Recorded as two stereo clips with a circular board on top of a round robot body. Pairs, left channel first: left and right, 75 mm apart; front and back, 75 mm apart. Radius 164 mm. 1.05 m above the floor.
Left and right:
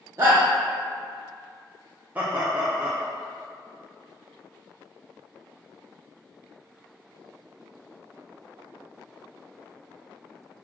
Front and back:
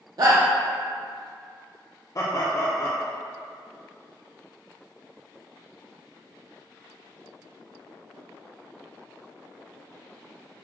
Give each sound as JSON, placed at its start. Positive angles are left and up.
{"t": 0.2, "sound": "a shout", "azimuth_deg": -145, "distance_m": 0.5}
{"t": 2.1, "sound": "laughter", "azimuth_deg": -30, "distance_m": 0.7}